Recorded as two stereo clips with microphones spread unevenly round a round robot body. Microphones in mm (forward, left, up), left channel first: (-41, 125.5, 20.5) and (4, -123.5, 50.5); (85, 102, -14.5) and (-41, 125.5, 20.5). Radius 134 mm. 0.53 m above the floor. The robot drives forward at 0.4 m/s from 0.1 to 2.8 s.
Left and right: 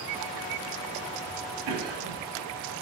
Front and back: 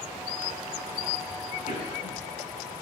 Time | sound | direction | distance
1.7 | a cough | 70° right | 4 m